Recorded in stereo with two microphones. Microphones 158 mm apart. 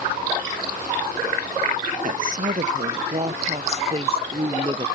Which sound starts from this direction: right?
A woman speaking, at 2.0 s.